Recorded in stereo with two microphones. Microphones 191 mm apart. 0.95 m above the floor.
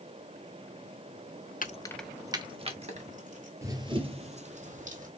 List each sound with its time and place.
1.6 s keys jangling: 45° left (ahead or behind), 0.5 m; by 3.5 s 40° right (ahead or behind), 1.9 m
3.6 s running footsteps: 15° right (ahead or behind), 1.1 m; by 5.1 s 45° right (ahead or behind), 2.5 m